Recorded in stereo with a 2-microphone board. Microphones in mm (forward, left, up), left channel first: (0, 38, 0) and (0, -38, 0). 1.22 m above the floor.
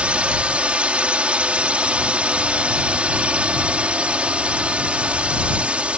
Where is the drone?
15° right (ahead or behind).